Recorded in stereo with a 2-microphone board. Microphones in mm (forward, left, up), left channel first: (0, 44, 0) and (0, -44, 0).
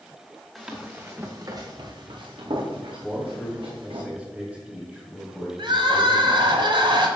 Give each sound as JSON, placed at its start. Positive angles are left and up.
{"t": 0.6, "sound": "running footsteps", "side_deg": -5, "distance_m": 1.8}
{"t": 3.0, "sound": "a man speaking", "side_deg": -10, "distance_m": 2.0}
{"t": 5.6, "sound": "crying", "side_deg": -65, "distance_m": 1.6}